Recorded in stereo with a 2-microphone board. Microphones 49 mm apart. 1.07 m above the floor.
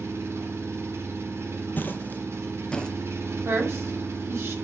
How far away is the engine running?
About 1.8 m.